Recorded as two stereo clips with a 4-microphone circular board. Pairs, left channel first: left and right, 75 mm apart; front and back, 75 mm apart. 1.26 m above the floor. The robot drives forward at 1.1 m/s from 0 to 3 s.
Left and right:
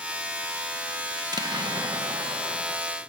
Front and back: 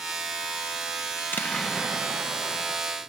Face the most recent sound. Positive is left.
turn(degrees=-150)